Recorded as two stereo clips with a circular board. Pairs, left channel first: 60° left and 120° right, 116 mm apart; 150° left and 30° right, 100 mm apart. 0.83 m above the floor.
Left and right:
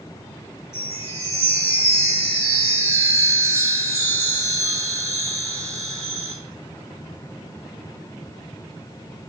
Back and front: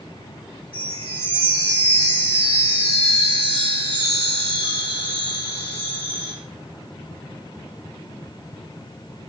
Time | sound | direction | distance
0.7 | a chime | 10° right | 1.8 m